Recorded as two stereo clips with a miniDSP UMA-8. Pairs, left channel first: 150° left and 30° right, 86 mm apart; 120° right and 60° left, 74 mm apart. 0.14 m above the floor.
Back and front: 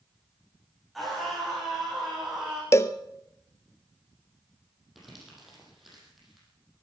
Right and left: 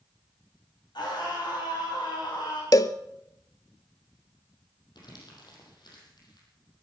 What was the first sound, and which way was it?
A scream, 120° right.